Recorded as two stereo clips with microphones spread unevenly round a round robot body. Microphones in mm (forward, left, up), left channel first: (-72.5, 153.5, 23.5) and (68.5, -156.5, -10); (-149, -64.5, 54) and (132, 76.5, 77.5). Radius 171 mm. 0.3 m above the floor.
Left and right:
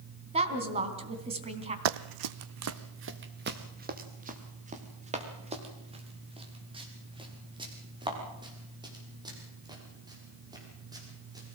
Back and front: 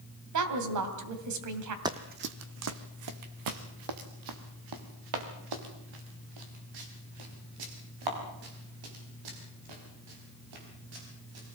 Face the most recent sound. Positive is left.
turn(degrees=15)